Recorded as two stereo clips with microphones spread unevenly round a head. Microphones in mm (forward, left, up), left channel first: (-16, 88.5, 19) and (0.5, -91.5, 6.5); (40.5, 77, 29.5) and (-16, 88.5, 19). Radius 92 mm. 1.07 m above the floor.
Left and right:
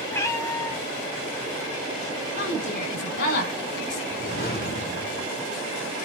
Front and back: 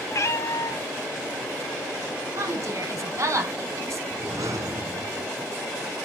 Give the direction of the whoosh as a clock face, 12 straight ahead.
7 o'clock.